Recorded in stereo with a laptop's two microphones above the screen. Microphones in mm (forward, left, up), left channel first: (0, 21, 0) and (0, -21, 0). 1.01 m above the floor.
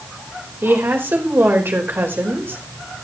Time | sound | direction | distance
0.6 | a woman speaking | 65° right (ahead or behind) | 3.5 m